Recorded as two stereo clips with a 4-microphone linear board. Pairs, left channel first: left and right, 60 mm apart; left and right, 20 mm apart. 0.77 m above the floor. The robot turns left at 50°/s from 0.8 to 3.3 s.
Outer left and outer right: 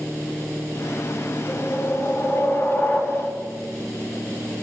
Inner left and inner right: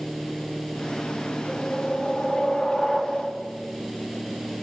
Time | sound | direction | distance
1.5 | a whoosh | 105° left | 4.5 m